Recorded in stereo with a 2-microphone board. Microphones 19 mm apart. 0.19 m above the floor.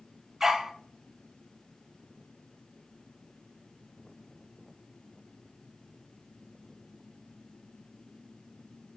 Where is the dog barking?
20° right (ahead or behind), 1.2 m.